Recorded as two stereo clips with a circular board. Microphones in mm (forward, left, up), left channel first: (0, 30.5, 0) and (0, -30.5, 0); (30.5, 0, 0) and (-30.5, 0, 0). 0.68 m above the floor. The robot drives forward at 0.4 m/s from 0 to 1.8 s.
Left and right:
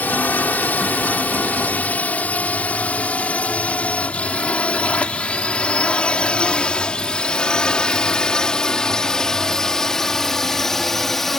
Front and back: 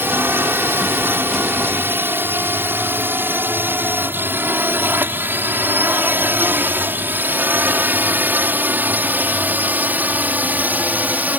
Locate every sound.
0.0 s a drone: 145° left; by 11.4 s 170° left